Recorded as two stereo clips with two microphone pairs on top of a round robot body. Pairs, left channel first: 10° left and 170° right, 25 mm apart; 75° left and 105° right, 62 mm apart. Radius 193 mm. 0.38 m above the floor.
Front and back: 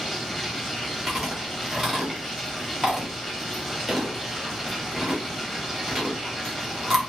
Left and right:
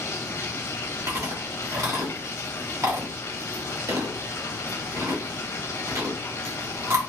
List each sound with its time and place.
0.0 s running water: 100° left, 1.1 m
1.1 s chewing: 80° right, 2.5 m